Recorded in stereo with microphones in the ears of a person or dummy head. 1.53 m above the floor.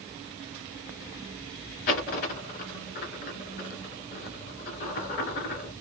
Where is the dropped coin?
50° left (ahead or behind), 2 m.